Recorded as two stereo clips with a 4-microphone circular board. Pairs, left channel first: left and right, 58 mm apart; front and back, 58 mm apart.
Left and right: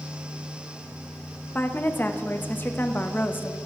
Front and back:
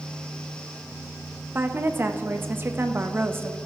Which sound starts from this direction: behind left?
A woman speaking, at 1.6 s.